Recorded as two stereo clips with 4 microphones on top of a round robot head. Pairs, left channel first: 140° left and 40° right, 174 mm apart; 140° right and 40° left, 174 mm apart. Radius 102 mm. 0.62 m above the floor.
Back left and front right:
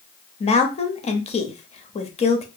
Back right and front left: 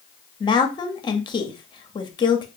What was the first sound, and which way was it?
A woman speaking, 170° left.